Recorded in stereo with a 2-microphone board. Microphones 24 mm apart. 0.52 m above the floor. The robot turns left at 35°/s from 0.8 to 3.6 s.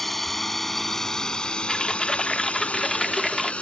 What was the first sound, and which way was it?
A drone, 10° left (ahead or behind).